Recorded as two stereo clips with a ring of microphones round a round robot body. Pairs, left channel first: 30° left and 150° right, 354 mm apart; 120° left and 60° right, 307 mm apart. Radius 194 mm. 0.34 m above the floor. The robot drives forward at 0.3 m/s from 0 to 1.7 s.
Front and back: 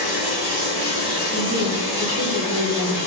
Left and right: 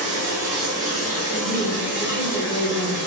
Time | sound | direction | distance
0.0 | running water | 95° right | 1.0 m
1.3 | a woman speaking | 85° left | 0.9 m